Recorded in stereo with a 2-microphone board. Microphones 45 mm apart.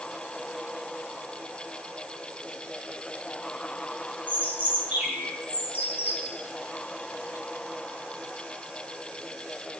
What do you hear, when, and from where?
4.3 s a bird: 35° right (ahead or behind), 4 m